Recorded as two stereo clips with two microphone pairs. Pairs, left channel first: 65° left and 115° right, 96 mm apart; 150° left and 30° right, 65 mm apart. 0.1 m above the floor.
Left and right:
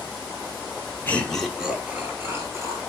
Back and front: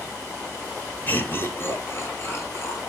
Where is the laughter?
120° left, 1.3 m; by 2.9 s 165° right, 2.5 m.